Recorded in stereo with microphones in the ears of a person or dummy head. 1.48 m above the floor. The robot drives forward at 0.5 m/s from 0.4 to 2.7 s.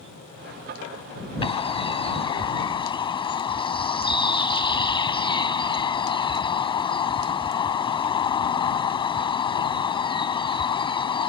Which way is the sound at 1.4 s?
25° left (ahead or behind).